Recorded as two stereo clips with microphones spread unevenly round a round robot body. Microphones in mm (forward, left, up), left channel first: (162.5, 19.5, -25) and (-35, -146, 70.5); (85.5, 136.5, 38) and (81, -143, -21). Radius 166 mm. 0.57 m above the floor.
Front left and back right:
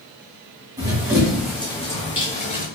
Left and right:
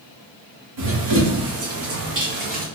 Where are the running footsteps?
70° right, 2 m; by 2.6 s 25° right, 1.8 m.